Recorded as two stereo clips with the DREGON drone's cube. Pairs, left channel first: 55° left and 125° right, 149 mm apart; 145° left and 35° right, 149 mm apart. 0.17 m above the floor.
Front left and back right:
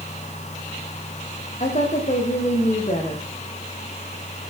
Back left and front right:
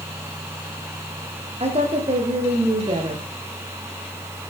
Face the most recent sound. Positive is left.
turn(degrees=15)